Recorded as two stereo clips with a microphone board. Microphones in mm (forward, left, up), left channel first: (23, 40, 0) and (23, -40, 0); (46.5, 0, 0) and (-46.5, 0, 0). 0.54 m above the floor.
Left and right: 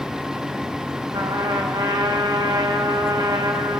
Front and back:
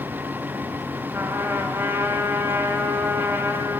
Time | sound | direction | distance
1.1 | a trumpet | 120° right | 4 m